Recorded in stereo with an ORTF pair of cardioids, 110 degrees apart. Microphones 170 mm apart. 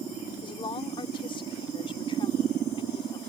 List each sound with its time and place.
0.4 s a woman speaking: 30° left